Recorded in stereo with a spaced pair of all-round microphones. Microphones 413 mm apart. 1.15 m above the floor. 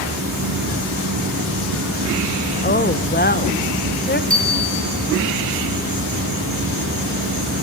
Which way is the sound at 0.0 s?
55° right (ahead or behind).